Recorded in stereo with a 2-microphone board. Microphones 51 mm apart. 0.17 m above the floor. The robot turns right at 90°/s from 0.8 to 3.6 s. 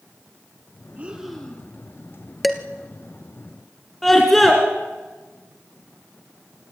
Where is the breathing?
35° right, 3 m; by 1.7 s 35° left, 3 m.